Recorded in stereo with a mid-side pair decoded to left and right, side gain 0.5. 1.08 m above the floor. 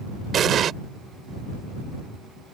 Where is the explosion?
55° right.